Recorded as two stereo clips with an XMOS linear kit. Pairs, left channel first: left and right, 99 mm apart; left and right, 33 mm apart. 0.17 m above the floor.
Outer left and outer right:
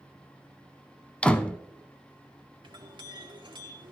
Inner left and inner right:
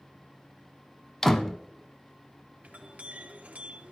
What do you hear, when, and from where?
1.2 s a door slam: 10° left (ahead or behind), 0.7 m
2.6 s a clink: 50° right (ahead or behind), 1.9 m